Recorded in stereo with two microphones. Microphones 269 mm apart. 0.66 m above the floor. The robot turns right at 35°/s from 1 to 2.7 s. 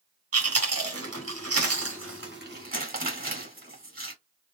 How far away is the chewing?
About 2.0 m.